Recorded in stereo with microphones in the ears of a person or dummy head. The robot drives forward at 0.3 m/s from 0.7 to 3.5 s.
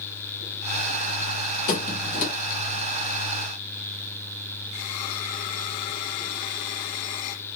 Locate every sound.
1.7 s a squeak: 40° left (ahead or behind), 1.0 m